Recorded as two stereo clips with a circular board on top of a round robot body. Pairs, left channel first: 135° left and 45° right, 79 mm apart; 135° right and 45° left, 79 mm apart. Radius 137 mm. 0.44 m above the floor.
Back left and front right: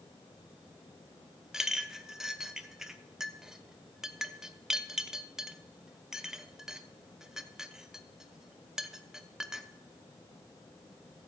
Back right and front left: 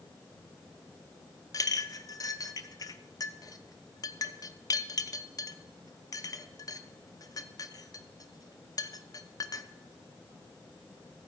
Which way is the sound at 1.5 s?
125° right.